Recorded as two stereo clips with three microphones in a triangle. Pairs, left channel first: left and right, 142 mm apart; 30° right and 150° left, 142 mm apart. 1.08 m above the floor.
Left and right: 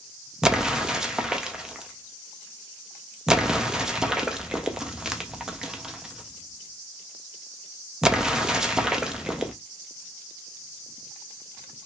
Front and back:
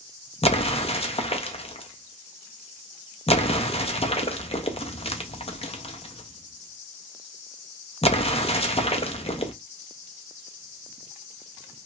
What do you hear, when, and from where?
0.4 s an explosion: 5° right, 0.5 m